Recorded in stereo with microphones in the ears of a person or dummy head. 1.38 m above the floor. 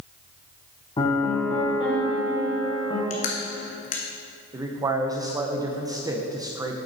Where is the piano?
20° left (ahead or behind), 1.1 m.